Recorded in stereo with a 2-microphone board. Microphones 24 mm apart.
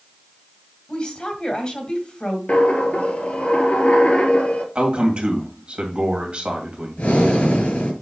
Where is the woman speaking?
40° left (ahead or behind), 1.7 m.